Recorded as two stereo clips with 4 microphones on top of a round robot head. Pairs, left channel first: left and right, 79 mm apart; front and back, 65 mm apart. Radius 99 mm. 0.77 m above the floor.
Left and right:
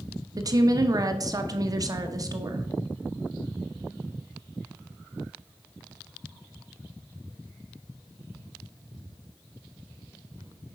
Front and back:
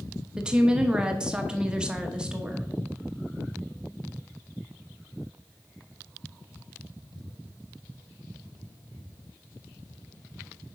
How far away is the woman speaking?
About 1.2 m.